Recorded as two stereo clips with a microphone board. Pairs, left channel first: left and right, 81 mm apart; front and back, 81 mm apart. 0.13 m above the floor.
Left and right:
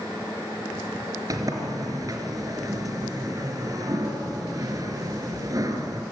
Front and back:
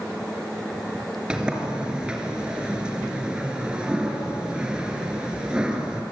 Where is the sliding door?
105° right, 2.5 m.